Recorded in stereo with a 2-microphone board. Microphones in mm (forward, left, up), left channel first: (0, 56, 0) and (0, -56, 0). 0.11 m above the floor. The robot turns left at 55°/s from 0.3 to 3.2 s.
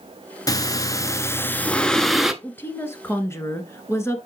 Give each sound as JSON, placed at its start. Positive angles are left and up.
{"t": 0.5, "sound": "breathing", "azimuth_deg": 90, "distance_m": 0.6}
{"t": 2.4, "sound": "a woman speaking", "side_deg": 15, "distance_m": 1.2}